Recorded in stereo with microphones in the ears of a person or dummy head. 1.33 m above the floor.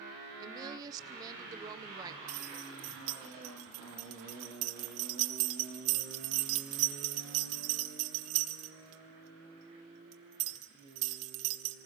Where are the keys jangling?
40° right (ahead or behind), 1.0 m.